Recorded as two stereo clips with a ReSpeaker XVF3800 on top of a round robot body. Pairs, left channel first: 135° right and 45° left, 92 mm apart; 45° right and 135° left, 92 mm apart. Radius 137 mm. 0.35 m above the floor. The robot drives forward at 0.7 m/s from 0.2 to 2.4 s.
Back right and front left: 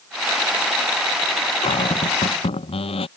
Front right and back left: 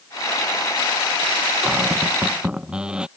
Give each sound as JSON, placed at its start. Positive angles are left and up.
{"t": 1.6, "sound": "a cupboard door", "azimuth_deg": -140}